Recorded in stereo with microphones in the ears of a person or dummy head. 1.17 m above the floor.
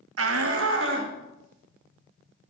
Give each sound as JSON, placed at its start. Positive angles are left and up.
{"t": 0.2, "sound": "a shout", "side_deg": -80, "distance_m": 0.6}